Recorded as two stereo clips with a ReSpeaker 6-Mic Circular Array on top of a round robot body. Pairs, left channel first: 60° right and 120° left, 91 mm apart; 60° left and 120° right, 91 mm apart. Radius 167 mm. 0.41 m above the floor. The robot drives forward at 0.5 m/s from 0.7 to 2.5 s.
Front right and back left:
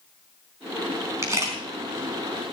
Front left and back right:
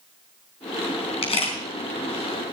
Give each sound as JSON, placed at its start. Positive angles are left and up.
{"t": 1.2, "sound": "a camera shutter", "azimuth_deg": 60, "distance_m": 4.0}